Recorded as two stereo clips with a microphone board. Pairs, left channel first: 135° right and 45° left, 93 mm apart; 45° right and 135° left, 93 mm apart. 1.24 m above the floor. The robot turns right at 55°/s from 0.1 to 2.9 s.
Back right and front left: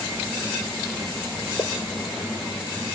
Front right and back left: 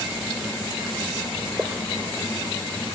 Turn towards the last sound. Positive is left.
turn(degrees=-70)